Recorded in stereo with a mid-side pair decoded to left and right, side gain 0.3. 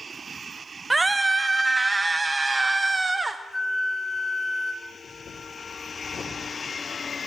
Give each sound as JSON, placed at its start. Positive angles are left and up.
{"t": 0.9, "sound": "a scream", "azimuth_deg": -30, "distance_m": 0.6}
{"t": 3.5, "sound": "a flute", "azimuth_deg": 15, "distance_m": 1.5}
{"t": 4.8, "sound": "breathing", "azimuth_deg": 65, "distance_m": 4.0}